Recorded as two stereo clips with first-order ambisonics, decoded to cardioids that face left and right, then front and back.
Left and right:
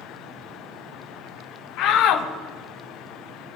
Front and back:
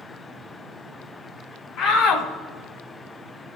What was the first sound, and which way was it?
A shout, 55° left.